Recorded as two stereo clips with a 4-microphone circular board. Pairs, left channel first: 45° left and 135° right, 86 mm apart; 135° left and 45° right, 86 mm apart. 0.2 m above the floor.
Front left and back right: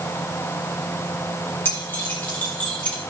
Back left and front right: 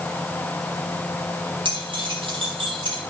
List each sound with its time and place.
1.6 s keys jangling: 20° right, 5 m; by 3.0 s 30° right, 5 m